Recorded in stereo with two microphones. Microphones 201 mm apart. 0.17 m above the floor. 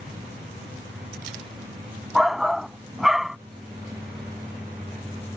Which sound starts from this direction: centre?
A shout, at 2.1 s.